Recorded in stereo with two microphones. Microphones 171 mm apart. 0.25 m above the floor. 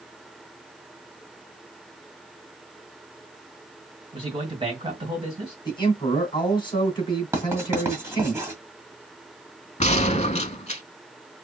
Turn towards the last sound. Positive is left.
turn(degrees=40)  # may be behind; listen again after turning